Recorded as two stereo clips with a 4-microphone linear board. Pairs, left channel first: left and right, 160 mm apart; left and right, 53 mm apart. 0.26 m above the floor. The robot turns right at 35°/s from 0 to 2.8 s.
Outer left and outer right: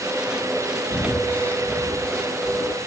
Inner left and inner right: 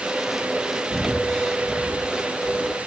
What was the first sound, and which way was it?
Breathing, 30° left (ahead or behind).